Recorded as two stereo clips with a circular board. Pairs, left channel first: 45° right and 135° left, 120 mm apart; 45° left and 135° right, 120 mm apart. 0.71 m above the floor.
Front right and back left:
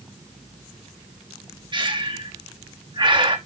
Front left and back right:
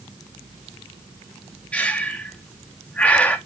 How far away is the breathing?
About 1.4 m.